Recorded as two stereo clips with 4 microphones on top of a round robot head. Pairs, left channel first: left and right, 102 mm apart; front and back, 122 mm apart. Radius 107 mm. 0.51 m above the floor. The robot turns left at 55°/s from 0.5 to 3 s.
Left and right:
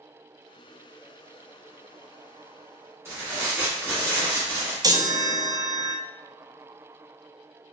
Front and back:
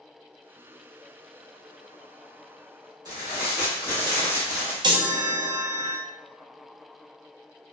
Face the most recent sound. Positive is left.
turn(degrees=-135)